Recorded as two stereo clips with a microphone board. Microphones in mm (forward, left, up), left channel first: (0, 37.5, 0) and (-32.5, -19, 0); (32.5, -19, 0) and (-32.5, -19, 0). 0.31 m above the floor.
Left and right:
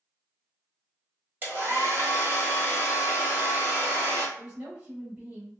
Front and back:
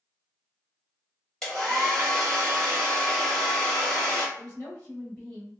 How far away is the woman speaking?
About 1.7 m.